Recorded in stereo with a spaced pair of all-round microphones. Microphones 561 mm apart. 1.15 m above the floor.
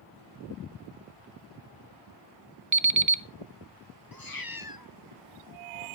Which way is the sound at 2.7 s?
35° right (ahead or behind).